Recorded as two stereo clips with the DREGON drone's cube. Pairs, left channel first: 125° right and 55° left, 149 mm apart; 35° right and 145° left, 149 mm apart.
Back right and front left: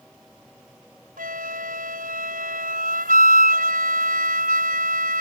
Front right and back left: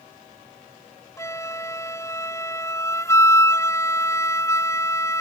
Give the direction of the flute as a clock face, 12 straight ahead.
11 o'clock.